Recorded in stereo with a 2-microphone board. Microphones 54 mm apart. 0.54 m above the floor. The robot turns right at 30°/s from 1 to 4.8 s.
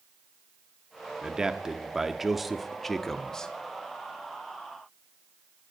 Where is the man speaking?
15° right (ahead or behind), 0.7 m; by 3.5 s 10° left (ahead or behind), 0.7 m.